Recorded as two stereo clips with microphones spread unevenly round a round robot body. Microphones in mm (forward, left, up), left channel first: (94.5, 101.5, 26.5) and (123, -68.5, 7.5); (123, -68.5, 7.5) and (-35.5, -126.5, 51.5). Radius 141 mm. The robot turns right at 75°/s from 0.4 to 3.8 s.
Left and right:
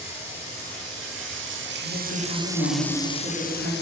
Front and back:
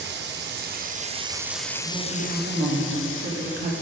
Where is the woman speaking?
95° left, 2 m; by 3.7 s 125° right, 2 m.